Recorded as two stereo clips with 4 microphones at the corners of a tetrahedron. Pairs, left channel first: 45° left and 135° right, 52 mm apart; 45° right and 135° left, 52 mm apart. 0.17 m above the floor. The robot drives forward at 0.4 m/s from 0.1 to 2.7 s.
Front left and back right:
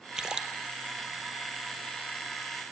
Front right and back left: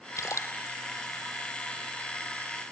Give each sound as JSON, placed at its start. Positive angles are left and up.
{"t": 0.2, "sound": "a splash", "azimuth_deg": -60, "distance_m": 1.7}